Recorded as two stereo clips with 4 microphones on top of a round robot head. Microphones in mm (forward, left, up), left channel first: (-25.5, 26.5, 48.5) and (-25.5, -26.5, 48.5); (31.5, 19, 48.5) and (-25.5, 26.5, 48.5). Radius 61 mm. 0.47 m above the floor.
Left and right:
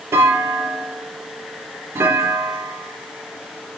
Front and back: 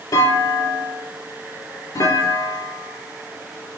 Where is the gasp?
I don't hear a gasp.